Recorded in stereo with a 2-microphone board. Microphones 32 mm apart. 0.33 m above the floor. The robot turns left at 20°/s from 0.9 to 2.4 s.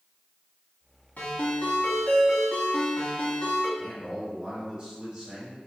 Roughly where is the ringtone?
Left.